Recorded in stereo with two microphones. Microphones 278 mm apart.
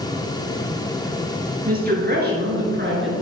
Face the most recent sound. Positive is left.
turn(degrees=-40)  # may be behind; listen again after turning